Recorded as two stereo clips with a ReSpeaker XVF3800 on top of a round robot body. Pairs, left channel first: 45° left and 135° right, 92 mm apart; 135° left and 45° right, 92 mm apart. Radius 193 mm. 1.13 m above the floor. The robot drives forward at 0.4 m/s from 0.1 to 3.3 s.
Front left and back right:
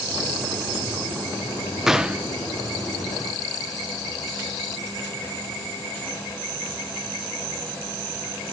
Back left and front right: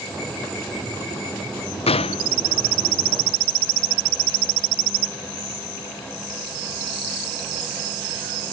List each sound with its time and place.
1.9 s a gunshot: 140° left, 0.6 m; by 2.3 s 150° left, 0.7 m